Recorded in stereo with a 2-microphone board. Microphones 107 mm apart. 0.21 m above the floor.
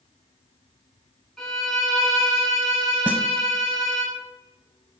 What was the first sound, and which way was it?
A violin, 5° left (ahead or behind).